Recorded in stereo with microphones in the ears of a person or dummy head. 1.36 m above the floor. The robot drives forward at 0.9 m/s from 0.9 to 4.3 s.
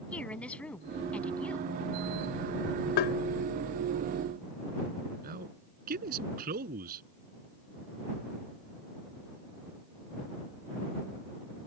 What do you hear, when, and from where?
0.1 s a woman speaking: 10° left (ahead or behind)
3.0 s tapping: 55° left (ahead or behind)
5.2 s a man speaking: 55° right (ahead or behind)